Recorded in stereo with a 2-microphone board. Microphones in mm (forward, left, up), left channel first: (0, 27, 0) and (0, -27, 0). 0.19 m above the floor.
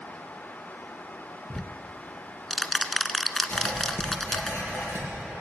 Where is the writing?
40° left (ahead or behind), 4 m.